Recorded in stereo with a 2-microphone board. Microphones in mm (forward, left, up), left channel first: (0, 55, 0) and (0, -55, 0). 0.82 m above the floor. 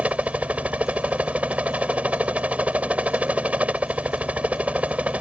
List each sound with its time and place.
0.0 s a helicopter: 10° right (ahead or behind)